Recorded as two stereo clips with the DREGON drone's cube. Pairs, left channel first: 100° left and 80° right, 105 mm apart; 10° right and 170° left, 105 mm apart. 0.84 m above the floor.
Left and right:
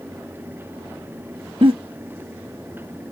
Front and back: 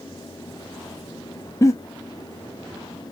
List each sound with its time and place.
1.6 s a giggle: 70° right, 1.2 m